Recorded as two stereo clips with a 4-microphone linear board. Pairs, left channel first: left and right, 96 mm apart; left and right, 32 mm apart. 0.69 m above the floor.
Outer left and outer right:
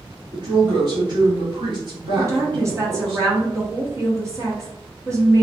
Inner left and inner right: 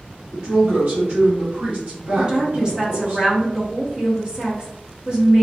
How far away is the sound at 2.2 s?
About 1.1 m.